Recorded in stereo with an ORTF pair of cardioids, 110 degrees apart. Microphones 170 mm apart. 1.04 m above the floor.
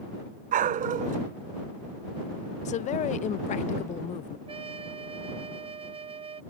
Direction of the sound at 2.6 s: 45° left.